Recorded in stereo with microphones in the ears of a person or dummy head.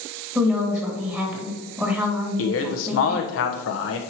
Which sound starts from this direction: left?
A man speaking, at 2.4 s.